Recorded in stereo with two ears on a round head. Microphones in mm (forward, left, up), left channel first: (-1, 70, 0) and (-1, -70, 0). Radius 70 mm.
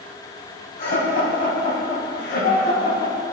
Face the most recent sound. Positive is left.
turn(degrees=60)  # may be behind; listen again after turning